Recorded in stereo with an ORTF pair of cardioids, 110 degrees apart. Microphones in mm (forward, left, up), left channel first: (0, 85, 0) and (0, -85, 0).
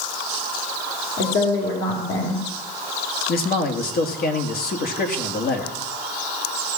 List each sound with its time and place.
1.2 s a woman speaking: 65° left, 3.5 m
3.3 s a man speaking: 65° left, 2 m